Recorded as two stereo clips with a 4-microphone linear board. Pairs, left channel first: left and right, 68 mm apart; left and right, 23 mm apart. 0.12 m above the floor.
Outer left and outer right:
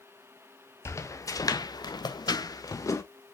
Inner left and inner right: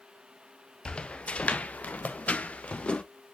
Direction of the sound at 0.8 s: 45° left (ahead or behind).